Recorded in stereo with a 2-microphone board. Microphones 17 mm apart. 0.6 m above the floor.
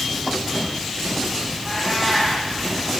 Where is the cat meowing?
10° left (ahead or behind), 8.5 m.